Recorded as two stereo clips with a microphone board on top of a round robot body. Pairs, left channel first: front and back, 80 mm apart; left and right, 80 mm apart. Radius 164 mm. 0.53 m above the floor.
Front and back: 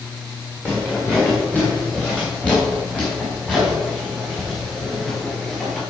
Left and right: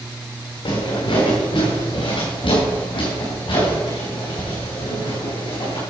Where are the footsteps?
70° left, 3.5 m; by 5.8 s 85° left, 6 m.